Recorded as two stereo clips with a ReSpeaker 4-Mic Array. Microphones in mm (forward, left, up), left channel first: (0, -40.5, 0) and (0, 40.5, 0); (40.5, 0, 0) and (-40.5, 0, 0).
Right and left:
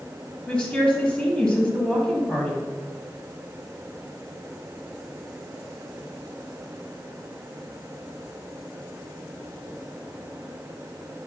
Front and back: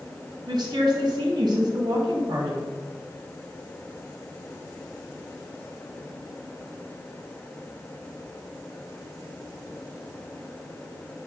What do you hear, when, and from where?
0.5 s a woman speaking: 165° right, 1.2 m